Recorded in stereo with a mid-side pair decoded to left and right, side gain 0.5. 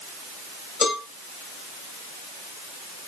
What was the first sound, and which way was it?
A cowbell, 45° left.